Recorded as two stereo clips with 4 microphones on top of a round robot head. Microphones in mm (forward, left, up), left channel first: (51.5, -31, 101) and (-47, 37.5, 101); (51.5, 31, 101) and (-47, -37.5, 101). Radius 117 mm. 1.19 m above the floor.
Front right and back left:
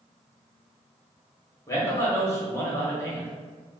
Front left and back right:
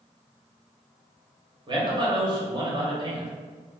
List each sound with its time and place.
1.7 s a man speaking: 100° right, 1.2 m